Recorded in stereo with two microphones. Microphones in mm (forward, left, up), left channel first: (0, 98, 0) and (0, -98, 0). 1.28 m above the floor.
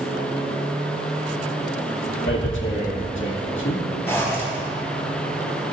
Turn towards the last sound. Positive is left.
turn(degrees=15)  # may be behind; listen again after turning